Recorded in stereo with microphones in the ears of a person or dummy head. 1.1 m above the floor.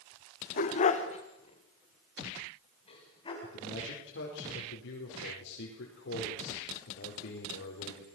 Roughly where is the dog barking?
Left.